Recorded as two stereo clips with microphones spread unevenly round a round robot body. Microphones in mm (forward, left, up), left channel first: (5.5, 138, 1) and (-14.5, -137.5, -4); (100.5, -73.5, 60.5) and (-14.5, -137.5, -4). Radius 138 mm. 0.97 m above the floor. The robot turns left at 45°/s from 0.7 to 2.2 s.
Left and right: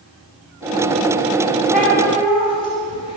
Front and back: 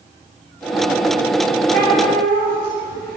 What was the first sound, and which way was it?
A cat meowing, straight behind.